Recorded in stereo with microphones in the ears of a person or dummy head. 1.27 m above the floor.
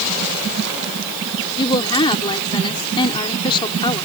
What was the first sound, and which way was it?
A woman speaking, 25° left (ahead or behind).